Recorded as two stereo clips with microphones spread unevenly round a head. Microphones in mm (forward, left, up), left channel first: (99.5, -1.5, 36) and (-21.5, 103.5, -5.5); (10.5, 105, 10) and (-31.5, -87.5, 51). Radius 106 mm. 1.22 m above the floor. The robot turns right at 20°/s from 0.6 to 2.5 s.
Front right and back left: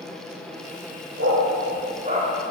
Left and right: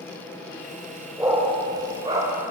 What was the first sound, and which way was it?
A dog barking, 175° right.